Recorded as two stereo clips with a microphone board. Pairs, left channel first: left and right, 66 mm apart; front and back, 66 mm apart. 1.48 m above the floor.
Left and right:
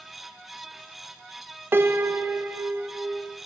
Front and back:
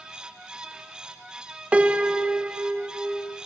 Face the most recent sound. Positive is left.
turn(degrees=-120)